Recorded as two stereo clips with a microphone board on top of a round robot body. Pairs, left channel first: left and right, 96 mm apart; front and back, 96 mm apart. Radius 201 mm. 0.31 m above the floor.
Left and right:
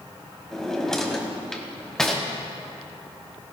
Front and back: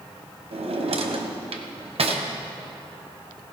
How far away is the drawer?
About 1.3 m.